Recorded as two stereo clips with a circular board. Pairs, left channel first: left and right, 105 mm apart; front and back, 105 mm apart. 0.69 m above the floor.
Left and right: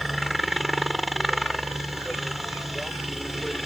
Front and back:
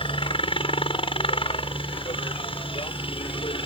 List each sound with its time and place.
0.0 s a helicopter: straight ahead